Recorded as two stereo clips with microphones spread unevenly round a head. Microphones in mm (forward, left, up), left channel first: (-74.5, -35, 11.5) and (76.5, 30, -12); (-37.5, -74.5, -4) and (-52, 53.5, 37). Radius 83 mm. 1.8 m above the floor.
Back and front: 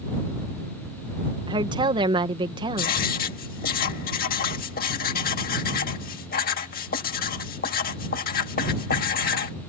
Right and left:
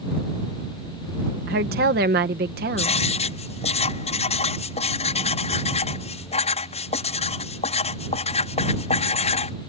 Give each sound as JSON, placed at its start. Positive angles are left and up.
{"t": 1.5, "sound": "a woman speaking", "azimuth_deg": 85}
{"t": 2.8, "sound": "writing", "azimuth_deg": -130}